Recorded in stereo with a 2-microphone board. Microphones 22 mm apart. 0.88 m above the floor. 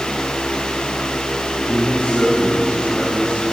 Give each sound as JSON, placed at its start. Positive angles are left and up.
{"t": 1.7, "sound": "a man speaking", "side_deg": 75, "distance_m": 8.5}